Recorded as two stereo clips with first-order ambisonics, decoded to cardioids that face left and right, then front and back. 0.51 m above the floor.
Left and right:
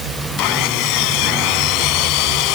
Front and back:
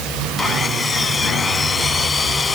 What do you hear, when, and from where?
0.4 s sawing: 75° left